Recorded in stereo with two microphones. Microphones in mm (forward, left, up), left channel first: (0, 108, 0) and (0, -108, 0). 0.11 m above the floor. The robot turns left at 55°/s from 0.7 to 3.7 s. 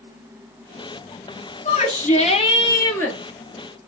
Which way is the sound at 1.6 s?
95° left.